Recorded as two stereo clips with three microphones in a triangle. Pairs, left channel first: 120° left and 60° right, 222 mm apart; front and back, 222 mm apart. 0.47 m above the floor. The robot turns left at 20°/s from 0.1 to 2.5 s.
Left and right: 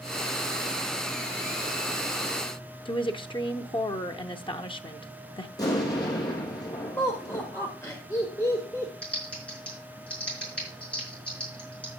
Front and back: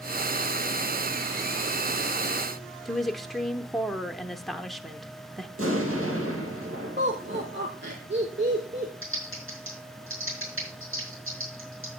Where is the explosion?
165° right, 3.5 m.